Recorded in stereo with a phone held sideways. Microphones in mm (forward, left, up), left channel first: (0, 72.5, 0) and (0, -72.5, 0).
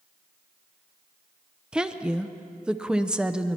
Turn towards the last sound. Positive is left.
turn(degrees=-5)  # may be behind; listen again after turning